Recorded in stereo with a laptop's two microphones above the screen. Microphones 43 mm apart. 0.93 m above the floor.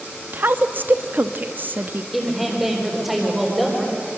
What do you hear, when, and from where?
0.3 s a woman speaking: 45° right (ahead or behind), 1.0 m
2.1 s a woman speaking: 5° right (ahead or behind), 3.5 m